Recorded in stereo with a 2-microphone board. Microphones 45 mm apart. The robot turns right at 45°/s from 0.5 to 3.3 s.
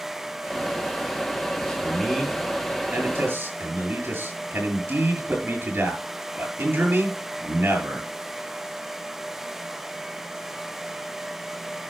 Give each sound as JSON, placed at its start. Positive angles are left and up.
{"t": 1.6, "sound": "a man speaking", "azimuth_deg": 160, "distance_m": 7.0}